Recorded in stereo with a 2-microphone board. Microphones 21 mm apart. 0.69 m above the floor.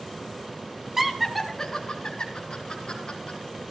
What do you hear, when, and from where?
1.0 s laughter: 20° right (ahead or behind), 1.0 m; by 3.4 s 60° left (ahead or behind), 2.5 m